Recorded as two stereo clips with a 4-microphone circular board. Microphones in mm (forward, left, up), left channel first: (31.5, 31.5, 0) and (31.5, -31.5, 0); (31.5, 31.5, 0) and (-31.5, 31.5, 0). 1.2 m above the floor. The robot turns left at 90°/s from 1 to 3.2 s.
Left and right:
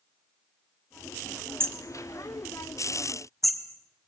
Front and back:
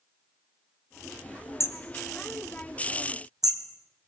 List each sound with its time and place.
1.6 s hammering: 40° right, 2 m; by 3.6 s 175° left, 2 m